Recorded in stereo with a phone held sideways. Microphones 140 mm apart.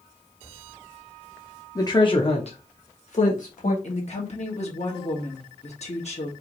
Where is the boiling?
I don't hear boiling.